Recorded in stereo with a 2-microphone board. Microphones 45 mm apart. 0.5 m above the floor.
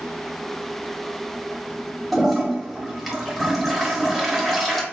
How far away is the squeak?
No squeak in this recording.